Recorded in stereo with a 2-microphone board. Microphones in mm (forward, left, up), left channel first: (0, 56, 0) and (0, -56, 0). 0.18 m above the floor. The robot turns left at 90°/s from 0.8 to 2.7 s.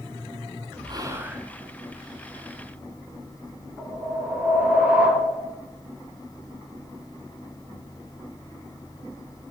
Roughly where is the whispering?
Behind right.